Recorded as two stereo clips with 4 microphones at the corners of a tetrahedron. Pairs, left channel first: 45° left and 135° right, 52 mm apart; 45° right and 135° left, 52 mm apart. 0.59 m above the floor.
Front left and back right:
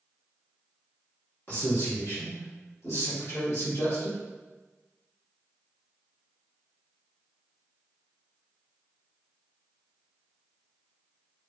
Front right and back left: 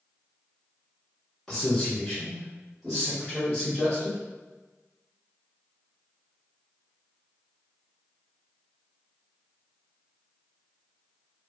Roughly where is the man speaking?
Ahead left.